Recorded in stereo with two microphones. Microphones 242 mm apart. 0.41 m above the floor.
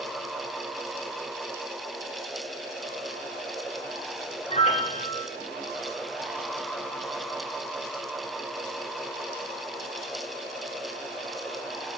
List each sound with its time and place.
4.5 s a piano: 30° left (ahead or behind), 1.7 m